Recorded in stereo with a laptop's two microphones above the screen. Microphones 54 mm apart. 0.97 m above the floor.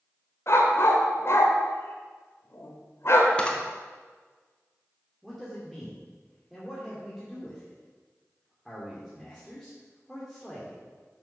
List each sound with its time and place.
0.5 s a dog barking: 50° left (ahead or behind), 1.7 m
3.4 s a camera shutter: 20° left (ahead or behind), 0.9 m
5.2 s a man speaking: 5° left (ahead or behind), 2.5 m